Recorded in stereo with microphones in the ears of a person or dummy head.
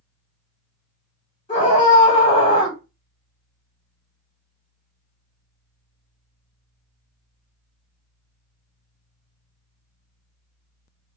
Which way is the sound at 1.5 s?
25° left (ahead or behind).